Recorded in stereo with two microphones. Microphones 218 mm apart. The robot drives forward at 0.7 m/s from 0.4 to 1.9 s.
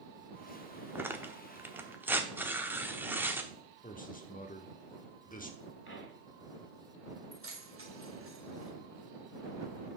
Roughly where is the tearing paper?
Centre.